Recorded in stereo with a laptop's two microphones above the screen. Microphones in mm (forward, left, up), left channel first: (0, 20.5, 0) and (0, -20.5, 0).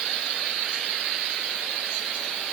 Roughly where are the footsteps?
No footsteps in this recording.